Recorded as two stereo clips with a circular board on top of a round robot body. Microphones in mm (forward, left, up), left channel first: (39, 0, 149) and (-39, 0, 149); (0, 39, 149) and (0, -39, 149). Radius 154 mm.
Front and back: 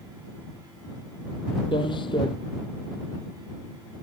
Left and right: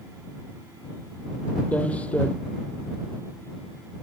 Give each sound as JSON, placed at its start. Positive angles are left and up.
{"t": 1.7, "sound": "footsteps", "azimuth_deg": 15}